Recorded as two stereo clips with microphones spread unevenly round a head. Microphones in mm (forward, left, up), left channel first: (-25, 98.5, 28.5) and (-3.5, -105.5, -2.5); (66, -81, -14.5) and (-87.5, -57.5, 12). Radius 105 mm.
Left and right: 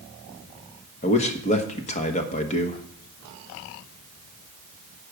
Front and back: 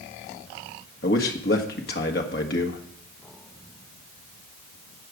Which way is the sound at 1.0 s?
35° left.